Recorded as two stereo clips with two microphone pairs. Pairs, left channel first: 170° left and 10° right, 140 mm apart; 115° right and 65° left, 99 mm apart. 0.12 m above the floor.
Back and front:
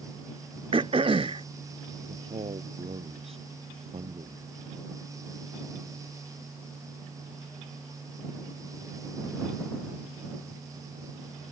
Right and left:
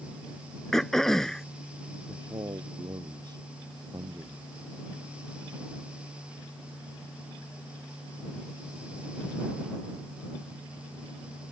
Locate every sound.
0.7 s throat clearing: 30° right
2.1 s a man speaking: 25° left